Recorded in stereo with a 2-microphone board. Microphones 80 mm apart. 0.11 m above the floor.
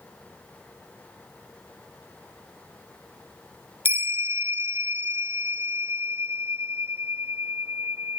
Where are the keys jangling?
I don't hear keys jangling.